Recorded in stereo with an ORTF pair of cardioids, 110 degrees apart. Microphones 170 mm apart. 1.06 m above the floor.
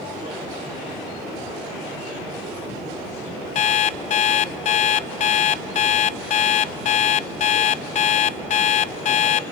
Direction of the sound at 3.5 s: 45° left.